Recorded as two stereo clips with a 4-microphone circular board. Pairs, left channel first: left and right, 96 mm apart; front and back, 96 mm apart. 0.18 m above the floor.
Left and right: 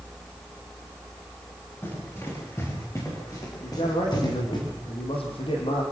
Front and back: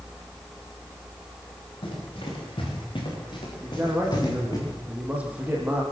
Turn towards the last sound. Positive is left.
turn(degrees=105)